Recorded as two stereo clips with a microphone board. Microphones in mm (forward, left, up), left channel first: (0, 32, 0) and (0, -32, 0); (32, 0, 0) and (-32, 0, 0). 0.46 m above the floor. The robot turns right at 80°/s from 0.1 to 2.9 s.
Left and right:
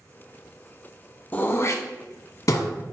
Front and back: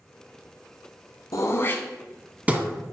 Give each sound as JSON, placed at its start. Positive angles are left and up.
{"t": 1.3, "sound": "throat clearing", "azimuth_deg": 25, "distance_m": 0.7}